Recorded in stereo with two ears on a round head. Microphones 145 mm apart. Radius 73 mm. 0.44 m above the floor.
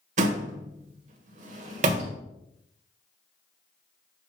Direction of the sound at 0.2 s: 50° right (ahead or behind).